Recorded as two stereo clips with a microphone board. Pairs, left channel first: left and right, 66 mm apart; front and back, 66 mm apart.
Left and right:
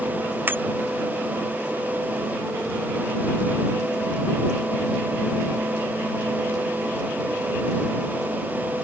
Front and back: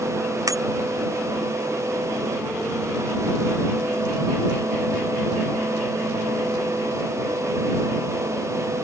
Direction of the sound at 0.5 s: 150° right.